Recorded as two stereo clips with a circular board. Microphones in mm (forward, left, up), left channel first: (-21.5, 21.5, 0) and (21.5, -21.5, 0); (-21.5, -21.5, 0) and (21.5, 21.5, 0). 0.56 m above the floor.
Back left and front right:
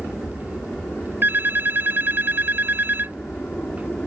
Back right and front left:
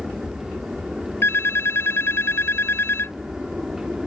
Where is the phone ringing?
95° right.